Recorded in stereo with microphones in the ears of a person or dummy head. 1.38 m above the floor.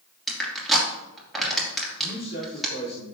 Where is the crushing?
5° right (ahead or behind), 2.5 m.